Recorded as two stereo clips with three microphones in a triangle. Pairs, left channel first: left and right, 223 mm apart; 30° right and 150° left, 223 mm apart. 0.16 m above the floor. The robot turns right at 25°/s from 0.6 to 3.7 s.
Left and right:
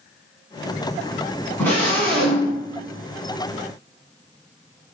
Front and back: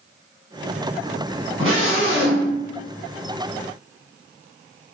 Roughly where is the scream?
Behind left.